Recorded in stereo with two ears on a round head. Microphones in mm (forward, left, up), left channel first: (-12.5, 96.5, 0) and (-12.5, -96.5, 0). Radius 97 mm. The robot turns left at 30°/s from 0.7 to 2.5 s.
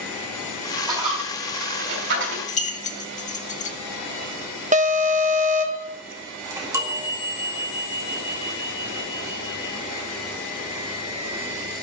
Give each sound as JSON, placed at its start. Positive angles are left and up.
{"t": 0.9, "sound": "a dropped coin", "side_deg": -15, "distance_m": 5.0}
{"t": 2.5, "sound": "keys jangling", "side_deg": 35, "distance_m": 1.7}
{"t": 4.7, "sound": "an alarm", "side_deg": -35, "distance_m": 1.1}
{"t": 6.5, "sound": "a chime", "side_deg": -15, "distance_m": 2.0}